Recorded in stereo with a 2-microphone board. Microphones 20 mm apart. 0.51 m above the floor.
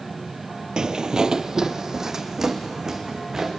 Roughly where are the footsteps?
Right.